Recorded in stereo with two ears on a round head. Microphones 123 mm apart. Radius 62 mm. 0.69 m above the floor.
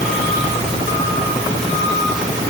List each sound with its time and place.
Only background noise.